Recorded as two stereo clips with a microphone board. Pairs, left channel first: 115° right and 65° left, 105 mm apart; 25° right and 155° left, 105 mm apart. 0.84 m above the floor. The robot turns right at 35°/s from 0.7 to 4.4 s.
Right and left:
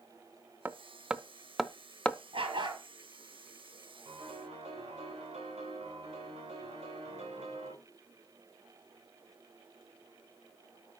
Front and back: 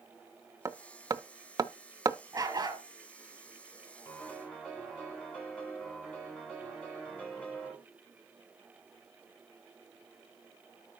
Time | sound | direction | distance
0.7 | hammering | 130° left | 0.5 m
2.3 | a dog barking | 100° left | 6 m
4.0 | a piano | 45° left | 9 m